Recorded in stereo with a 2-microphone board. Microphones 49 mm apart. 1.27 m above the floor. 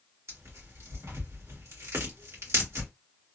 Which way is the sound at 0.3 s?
70° right (ahead or behind).